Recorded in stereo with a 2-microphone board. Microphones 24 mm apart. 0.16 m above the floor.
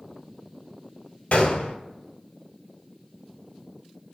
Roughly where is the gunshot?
Left.